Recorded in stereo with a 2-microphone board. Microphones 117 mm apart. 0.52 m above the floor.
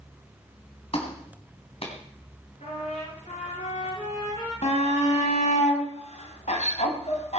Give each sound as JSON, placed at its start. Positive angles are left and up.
{"t": 0.9, "sound": "a clap", "side_deg": 55, "distance_m": 3.5}
{"t": 2.6, "sound": "a trumpet", "side_deg": 80, "distance_m": 8.5}
{"t": 4.6, "sound": "a shout", "side_deg": 75, "distance_m": 3.5}